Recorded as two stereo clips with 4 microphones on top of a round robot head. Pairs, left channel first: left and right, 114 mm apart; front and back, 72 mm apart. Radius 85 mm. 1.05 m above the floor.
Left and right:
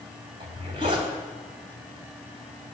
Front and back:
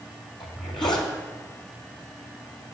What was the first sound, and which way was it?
A zipper, 35° right.